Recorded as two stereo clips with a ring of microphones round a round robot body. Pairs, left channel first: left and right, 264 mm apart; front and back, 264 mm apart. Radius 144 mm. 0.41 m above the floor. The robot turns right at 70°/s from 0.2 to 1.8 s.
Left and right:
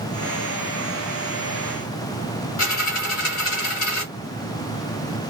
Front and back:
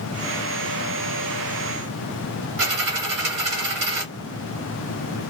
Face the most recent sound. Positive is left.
turn(degrees=140)